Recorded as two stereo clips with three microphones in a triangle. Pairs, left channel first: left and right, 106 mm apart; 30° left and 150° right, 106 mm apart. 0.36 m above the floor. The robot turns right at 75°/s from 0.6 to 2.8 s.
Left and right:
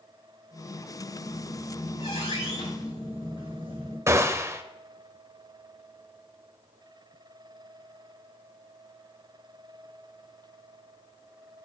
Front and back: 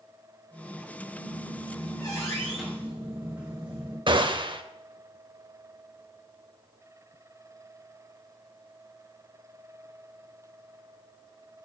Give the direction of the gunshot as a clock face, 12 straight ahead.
5 o'clock.